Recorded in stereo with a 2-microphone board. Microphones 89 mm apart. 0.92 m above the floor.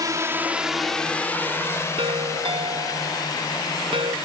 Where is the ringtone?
70° right (ahead or behind).